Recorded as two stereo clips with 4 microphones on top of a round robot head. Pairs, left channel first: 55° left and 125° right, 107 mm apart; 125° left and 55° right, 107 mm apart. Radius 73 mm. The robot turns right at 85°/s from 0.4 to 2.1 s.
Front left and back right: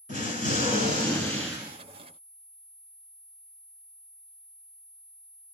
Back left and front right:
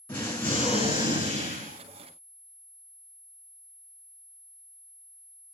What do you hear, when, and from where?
0.1 s an explosion: 50° left, 1.6 m; by 1.8 s 170° left, 1.6 m